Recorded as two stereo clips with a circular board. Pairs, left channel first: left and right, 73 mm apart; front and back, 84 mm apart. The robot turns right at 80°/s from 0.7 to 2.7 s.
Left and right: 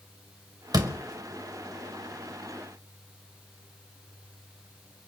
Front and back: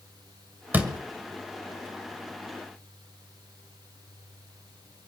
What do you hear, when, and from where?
0.7 s a door slam: 115° right, 2 m; by 1.0 s 95° right, 2 m